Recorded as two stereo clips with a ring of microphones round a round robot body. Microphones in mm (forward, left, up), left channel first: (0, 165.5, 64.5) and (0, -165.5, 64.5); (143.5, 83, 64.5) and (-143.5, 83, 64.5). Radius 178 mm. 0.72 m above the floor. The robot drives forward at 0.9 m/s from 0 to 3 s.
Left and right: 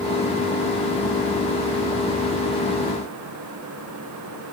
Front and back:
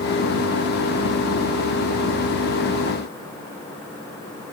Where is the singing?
I don't hear singing.